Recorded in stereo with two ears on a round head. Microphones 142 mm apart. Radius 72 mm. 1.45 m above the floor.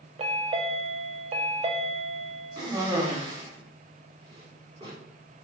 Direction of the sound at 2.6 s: 25° right (ahead or behind).